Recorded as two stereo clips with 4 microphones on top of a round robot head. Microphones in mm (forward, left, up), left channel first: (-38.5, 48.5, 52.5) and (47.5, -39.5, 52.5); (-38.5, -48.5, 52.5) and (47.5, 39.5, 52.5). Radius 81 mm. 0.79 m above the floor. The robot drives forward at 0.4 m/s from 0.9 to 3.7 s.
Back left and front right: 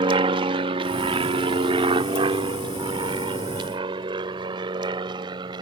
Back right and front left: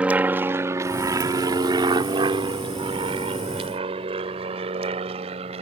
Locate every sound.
0.0 s an aircraft: 30° right; by 5.6 s 5° left